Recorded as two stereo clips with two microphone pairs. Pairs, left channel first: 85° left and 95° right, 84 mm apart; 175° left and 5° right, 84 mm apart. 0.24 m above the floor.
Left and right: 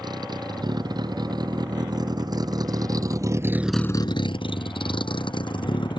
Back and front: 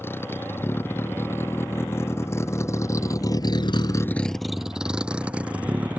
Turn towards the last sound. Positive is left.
turn(degrees=65)